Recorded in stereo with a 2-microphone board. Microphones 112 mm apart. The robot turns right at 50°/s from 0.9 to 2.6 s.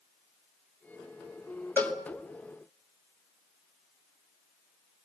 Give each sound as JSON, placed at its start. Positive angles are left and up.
{"t": 1.8, "sound": "a cowbell", "side_deg": 20, "distance_m": 2.0}